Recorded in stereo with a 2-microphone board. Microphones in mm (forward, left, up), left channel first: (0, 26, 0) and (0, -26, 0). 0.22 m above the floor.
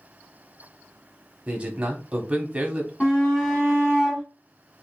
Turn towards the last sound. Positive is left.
turn(degrees=20)  # may be behind; listen again after turning